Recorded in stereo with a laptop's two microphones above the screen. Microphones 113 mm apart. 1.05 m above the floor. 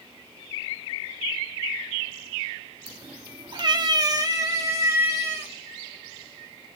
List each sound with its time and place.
2.9 s a cat meowing: 40° right (ahead or behind), 0.6 m; by 5.5 s 25° right (ahead or behind), 1.7 m